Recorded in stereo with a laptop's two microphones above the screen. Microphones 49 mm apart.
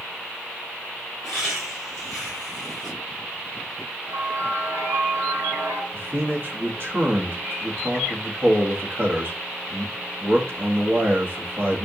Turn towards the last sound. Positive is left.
turn(degrees=-50)  # may be behind; listen again after turning